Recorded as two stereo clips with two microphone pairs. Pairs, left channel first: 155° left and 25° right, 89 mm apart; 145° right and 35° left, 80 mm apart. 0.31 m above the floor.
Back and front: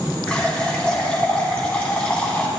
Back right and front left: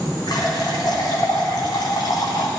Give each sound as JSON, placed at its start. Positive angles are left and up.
{"t": 0.3, "sound": "a running tap", "azimuth_deg": -130, "distance_m": 1.4}